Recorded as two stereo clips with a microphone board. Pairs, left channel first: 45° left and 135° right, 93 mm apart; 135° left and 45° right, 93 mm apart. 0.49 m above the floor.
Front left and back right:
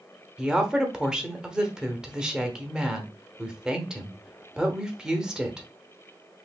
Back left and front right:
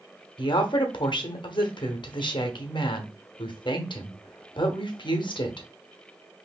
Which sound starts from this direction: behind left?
A woman speaking, at 0.4 s.